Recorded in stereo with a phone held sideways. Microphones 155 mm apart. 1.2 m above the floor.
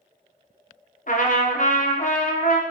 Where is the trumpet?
60° left (ahead or behind), 0.5 m.